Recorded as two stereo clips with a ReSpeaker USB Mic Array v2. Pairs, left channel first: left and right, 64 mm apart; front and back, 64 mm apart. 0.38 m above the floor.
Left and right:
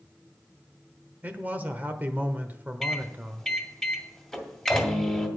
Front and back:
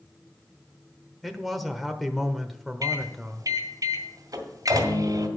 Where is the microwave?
175° left, 2 m.